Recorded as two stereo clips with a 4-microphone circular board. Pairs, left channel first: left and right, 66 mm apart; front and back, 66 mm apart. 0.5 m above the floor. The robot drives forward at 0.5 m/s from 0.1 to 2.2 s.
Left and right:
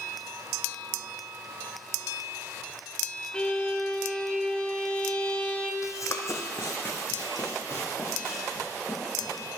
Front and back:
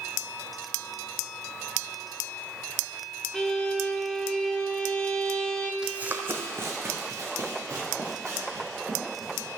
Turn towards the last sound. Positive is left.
turn(degrees=140)